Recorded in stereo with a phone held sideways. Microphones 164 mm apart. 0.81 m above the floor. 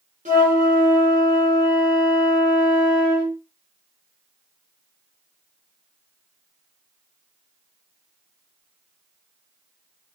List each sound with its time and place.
0.2 s a flute: 50° right (ahead or behind), 1.1 m